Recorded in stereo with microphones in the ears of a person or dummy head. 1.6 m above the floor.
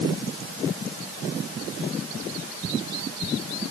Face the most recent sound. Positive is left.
No sound to turn to.